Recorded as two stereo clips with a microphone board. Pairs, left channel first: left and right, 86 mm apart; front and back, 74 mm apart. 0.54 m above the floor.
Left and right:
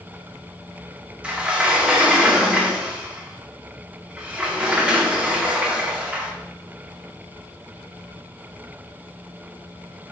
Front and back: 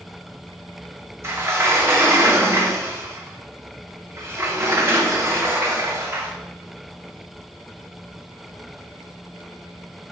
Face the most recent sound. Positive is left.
turn(degrees=-160)